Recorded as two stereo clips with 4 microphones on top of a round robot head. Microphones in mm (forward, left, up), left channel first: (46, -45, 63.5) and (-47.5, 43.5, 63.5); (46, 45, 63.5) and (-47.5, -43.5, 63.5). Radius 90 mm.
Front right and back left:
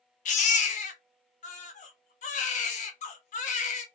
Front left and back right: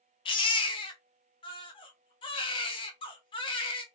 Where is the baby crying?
10° right, 0.6 m.